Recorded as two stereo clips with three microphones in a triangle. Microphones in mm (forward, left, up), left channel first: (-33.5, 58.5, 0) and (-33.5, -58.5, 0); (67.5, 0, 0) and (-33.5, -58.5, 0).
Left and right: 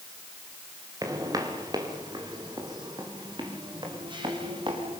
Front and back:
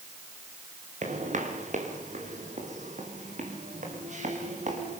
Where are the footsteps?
150° right, 5 m; by 5.0 s 140° right, 8 m.